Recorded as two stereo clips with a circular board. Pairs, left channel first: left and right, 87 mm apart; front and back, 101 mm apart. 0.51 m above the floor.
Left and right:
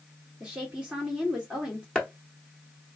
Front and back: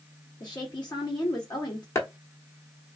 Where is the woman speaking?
15° right, 1.2 m.